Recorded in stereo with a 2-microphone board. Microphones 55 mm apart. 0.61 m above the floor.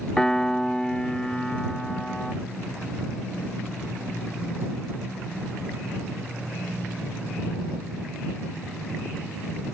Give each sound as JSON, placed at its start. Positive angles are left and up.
{"t": 0.2, "sound": "a piano", "side_deg": 10}